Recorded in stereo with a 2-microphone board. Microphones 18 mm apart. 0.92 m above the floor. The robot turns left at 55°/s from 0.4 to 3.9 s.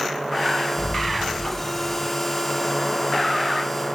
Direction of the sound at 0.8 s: 35° right.